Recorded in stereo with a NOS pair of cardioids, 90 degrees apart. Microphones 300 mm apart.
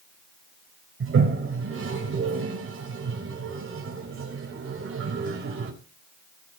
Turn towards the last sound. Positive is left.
turn(degrees=-45)